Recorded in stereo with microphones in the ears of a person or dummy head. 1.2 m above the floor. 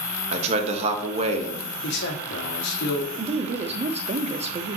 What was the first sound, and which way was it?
A man speaking, 35° right (ahead or behind).